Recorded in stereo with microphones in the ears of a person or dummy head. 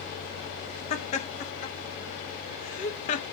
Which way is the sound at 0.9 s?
40° left (ahead or behind).